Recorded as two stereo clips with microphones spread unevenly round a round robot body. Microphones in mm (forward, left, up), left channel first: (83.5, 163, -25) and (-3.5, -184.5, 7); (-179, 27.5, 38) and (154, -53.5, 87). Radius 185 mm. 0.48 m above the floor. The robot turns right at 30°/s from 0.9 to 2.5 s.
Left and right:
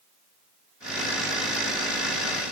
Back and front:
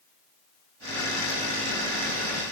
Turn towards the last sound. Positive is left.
No sound to turn to.